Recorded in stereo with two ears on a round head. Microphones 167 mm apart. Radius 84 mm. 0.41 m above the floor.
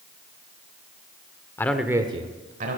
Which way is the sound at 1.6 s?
15° left (ahead or behind).